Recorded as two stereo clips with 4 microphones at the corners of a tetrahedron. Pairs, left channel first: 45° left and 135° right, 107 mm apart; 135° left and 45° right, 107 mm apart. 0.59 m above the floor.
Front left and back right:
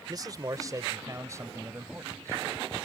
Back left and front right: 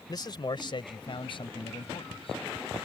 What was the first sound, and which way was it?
A man speaking, straight behind.